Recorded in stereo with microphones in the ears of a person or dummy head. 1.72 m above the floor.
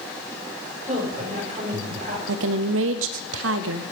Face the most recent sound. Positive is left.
turn(degrees=-80)